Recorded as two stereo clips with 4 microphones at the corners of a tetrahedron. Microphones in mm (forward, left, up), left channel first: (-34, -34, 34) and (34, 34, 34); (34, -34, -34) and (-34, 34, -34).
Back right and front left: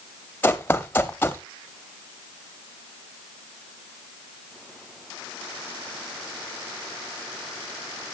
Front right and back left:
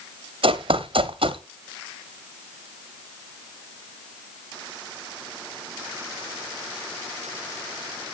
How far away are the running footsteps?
About 0.8 m.